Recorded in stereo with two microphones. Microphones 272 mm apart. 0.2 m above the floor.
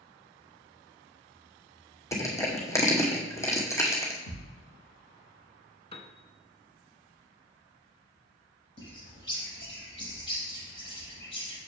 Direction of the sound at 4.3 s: 45° left (ahead or behind).